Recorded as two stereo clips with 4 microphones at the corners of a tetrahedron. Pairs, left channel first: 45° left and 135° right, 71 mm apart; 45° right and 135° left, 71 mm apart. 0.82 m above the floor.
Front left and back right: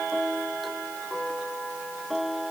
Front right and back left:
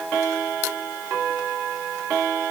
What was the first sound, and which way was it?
Only background noise.